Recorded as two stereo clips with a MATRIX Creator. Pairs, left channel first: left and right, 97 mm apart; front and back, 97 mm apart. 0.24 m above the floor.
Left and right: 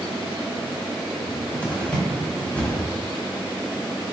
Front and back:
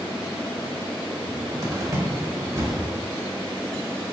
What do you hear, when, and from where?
1.2 s a cupboard door: 155° left, 1.0 m